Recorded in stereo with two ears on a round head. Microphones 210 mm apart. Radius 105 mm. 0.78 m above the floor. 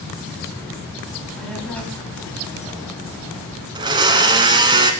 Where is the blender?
20° right (ahead or behind), 1.2 m.